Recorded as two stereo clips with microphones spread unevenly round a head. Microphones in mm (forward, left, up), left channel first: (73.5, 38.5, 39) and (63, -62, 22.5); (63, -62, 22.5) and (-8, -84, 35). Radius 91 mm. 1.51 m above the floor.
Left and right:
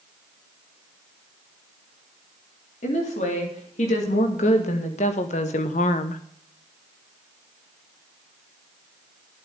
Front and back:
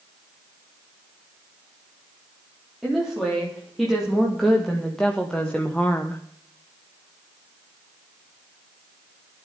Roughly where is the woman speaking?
Left.